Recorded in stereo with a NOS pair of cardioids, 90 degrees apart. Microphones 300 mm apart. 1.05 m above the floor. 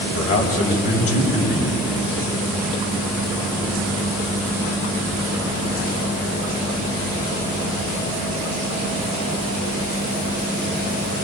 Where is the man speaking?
55° left, 5.5 m.